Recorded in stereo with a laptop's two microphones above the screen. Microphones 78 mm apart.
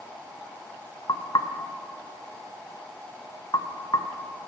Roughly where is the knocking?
Left.